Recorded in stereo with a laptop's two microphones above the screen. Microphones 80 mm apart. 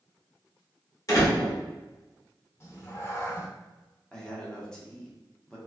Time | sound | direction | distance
1.1 | a door slam | 45° left (ahead or behind) | 2.0 m
2.6 | a cat meowing | 30° left (ahead or behind) | 0.6 m
4.1 | a man speaking | 10° left (ahead or behind) | 0.8 m